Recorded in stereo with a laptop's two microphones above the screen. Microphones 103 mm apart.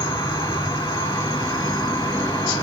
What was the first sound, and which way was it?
An insect, 50° left (ahead or behind).